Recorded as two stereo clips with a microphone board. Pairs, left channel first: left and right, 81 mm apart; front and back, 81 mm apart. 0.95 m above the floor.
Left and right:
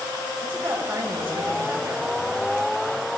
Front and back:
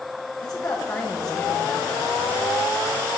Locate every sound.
0.4 s a woman speaking: 30° right, 4.5 m